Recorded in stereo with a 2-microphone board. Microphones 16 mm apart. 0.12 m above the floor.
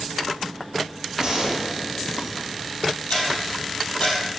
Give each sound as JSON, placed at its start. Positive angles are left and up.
{"t": 1.2, "sound": "a gunshot", "side_deg": -35, "distance_m": 2.5}
{"t": 3.1, "sound": "ticking", "side_deg": 65, "distance_m": 4.0}